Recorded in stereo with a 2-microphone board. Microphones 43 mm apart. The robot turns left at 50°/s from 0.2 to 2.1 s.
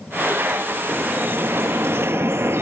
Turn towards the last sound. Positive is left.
turn(degrees=-95)